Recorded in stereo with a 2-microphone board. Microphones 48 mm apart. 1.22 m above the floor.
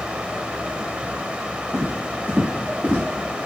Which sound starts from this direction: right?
Footsteps, at 1.7 s.